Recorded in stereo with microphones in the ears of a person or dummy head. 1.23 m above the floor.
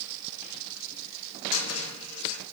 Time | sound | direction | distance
1.5 | a cupboard door | 80° left | 2.0 m